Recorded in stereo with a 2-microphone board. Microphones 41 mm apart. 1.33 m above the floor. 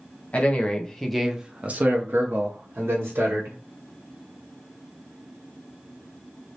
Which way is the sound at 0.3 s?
35° left (ahead or behind).